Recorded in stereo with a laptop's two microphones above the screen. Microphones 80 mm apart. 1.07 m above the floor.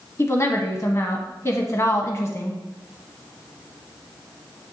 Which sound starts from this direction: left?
A woman speaking, at 0.2 s.